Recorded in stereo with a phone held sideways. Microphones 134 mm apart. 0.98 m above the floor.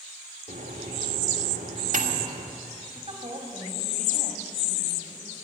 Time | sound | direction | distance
0.5 | a microwave | 85° right | 1.6 m
3.0 | a woman speaking | 45° right (ahead or behind) | 2.5 m